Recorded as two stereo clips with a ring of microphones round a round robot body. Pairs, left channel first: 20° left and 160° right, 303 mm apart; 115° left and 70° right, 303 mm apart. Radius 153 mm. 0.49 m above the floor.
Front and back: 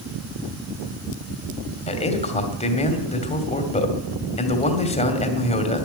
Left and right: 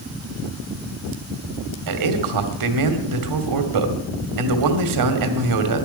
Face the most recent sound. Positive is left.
turn(degrees=-45)